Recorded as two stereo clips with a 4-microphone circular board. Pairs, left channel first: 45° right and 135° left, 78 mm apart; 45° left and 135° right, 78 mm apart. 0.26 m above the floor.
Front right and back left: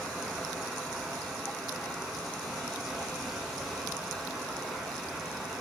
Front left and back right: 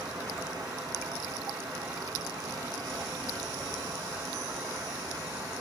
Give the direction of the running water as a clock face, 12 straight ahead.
5 o'clock.